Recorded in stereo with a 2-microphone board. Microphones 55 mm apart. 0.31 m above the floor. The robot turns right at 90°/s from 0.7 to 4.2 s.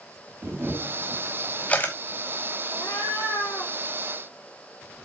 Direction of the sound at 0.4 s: 40° right (ahead or behind).